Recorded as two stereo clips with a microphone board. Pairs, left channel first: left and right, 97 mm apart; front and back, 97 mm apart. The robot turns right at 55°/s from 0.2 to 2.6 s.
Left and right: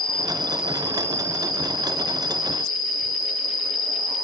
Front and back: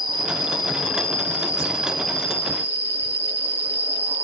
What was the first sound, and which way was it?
An insect, 170° left.